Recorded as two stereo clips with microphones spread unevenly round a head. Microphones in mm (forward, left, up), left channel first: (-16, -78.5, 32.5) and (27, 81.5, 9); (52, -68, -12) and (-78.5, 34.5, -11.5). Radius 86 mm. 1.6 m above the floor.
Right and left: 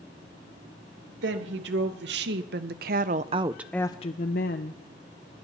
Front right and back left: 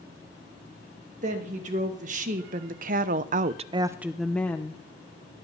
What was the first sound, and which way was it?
A woman speaking, 95° left.